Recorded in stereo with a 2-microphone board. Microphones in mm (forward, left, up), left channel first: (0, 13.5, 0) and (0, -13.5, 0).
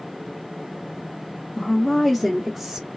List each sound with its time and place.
1.6 s a woman speaking: 25° left (ahead or behind), 0.7 m; by 2.9 s 20° right (ahead or behind), 0.9 m